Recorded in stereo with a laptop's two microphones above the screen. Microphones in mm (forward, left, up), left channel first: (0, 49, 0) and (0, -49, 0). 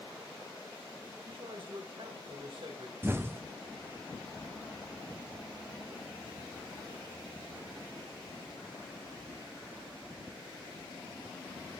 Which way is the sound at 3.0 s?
25° right (ahead or behind).